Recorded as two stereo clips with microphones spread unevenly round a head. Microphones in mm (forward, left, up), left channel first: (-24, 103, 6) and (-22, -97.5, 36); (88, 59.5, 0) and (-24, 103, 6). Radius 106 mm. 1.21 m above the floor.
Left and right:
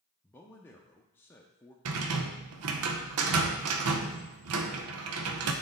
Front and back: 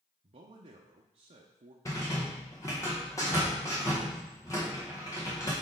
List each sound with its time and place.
0.2 s a man speaking: 160° left, 0.7 m
1.9 s a rattle: 95° right, 0.7 m